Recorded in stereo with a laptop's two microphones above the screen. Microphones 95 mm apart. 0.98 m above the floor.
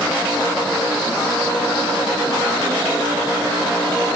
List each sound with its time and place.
Only background noise.